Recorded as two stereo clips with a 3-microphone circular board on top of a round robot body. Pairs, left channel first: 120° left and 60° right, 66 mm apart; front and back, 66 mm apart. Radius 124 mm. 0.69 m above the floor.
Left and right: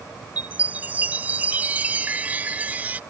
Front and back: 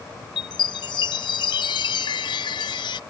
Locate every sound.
0.4 s a chime: 10° left